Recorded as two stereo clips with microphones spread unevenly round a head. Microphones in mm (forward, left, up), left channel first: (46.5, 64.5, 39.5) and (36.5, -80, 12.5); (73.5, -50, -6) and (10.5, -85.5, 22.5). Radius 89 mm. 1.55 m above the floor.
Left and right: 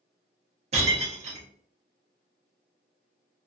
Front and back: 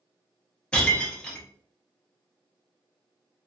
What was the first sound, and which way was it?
Breaking glass, 70° right.